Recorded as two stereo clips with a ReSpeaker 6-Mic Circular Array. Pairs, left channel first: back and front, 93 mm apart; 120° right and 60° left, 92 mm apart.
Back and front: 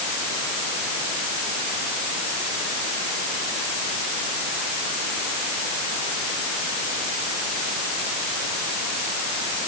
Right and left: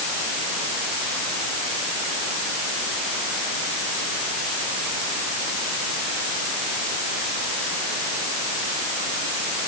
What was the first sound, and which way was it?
Only background noise.